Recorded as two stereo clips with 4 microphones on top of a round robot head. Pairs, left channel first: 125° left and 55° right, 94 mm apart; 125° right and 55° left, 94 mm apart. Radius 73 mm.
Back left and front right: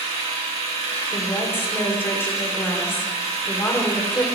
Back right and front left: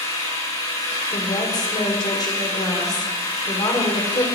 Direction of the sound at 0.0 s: 80° right.